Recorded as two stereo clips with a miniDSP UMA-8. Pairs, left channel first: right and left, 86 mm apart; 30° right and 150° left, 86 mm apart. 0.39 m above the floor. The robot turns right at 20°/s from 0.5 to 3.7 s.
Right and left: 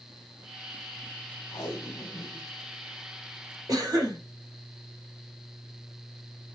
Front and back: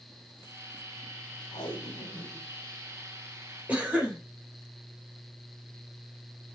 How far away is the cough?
About 1.5 m.